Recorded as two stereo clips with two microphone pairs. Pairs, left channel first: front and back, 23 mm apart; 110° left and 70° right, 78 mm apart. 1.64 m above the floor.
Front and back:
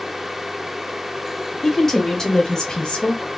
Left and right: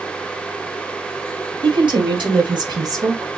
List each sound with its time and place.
1.6 s a woman speaking: 70° right, 1.6 m; by 3.3 s 20° right, 0.9 m